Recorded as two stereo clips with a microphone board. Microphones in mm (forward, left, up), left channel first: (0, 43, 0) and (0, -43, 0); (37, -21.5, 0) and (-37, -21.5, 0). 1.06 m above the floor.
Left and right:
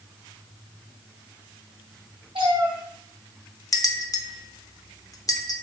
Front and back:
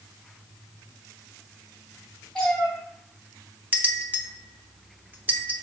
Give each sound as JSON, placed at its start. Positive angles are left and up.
{"t": 2.4, "sound": "a cat meowing", "azimuth_deg": -75, "distance_m": 3.0}
{"t": 3.7, "sound": "a bell", "azimuth_deg": 125, "distance_m": 0.8}